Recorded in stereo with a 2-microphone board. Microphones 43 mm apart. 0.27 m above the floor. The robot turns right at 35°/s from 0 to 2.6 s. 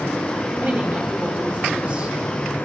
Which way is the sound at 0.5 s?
90° right.